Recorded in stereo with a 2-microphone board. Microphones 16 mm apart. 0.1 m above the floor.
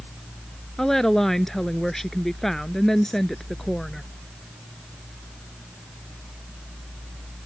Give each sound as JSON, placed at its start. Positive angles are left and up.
{"t": 0.8, "sound": "a woman speaking", "side_deg": 25}